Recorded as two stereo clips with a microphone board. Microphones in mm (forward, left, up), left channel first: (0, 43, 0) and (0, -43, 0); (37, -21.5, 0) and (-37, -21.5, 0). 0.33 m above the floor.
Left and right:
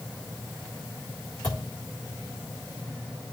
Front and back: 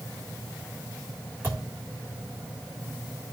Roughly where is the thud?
Behind left.